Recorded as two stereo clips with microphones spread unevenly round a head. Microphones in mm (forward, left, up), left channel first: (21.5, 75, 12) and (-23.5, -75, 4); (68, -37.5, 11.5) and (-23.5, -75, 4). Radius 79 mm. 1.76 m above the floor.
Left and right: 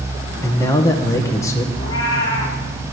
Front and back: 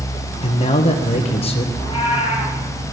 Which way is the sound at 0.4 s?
Straight ahead.